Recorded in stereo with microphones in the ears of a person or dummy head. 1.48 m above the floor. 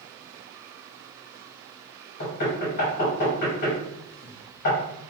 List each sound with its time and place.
2.2 s knocking: 45° left (ahead or behind), 1.6 m